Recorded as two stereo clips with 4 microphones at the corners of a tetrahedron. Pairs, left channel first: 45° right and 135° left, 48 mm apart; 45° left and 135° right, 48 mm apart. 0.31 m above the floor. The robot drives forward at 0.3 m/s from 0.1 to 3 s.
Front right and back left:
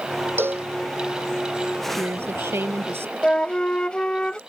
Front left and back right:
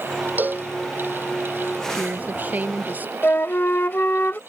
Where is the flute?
20° left.